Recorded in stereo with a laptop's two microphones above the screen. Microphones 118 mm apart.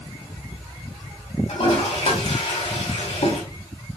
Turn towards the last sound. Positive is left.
turn(degrees=60)  # may be behind; listen again after turning